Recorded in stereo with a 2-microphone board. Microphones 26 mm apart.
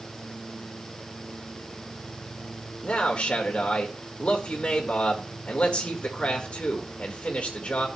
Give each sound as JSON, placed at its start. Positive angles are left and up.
{"t": 2.8, "sound": "a man speaking", "side_deg": 45, "distance_m": 1.9}